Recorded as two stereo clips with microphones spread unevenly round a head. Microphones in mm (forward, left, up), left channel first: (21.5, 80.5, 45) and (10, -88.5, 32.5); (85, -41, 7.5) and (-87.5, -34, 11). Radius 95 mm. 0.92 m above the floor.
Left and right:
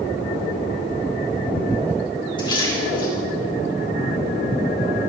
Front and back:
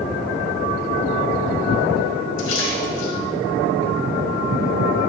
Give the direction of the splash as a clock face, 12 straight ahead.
11 o'clock.